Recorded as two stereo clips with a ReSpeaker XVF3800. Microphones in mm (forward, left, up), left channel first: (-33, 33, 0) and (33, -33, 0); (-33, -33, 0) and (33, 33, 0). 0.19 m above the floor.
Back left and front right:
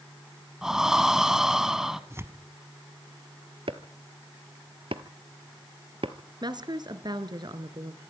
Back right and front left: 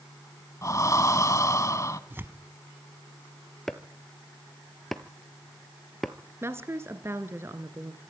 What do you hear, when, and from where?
0.6 s breathing: 125° right, 1.1 m
2.1 s tearing paper: 5° right, 1.2 m
3.7 s chopping: 50° right, 1.2 m
6.4 s a woman speaking: 15° right, 2 m